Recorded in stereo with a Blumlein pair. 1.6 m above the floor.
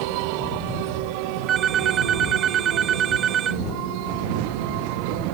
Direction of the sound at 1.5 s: 25° right.